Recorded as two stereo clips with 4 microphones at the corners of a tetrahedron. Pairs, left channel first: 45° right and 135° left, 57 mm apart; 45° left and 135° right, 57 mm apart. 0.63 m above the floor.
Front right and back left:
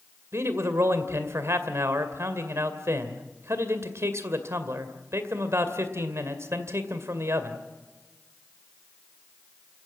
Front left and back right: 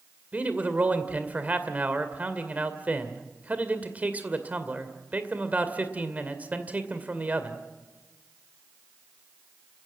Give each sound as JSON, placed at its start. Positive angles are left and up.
{"t": 0.3, "sound": "a man speaking", "azimuth_deg": 165, "distance_m": 2.0}